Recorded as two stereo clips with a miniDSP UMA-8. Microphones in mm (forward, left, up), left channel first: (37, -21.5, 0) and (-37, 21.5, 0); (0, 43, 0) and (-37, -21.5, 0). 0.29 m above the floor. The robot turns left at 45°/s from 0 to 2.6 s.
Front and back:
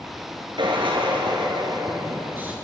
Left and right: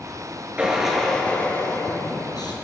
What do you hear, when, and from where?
0.6 s a drill: 170° left, 5.5 m; by 2.5 s 80° left, 5.5 m